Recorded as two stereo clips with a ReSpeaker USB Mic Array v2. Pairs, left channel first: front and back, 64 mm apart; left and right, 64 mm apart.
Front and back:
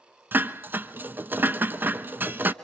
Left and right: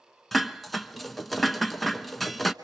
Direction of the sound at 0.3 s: 175° left.